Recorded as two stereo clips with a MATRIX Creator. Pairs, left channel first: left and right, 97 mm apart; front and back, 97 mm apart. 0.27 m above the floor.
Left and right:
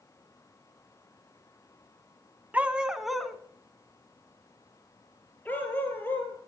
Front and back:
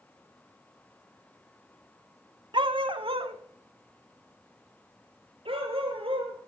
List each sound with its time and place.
2.5 s a dog barking: 165° right, 0.8 m; by 6.4 s 160° left, 3 m